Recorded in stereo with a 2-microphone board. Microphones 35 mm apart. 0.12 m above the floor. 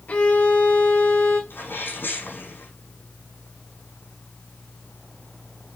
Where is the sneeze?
70° left (ahead or behind), 5.5 m.